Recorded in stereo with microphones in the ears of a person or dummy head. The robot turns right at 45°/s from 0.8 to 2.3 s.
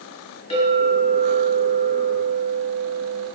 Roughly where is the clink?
Behind left.